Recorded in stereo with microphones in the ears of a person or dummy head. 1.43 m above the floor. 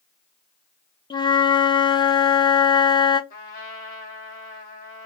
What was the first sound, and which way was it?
A flute, 25° left (ahead or behind).